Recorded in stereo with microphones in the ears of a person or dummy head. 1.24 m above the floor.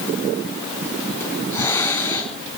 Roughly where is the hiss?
Centre.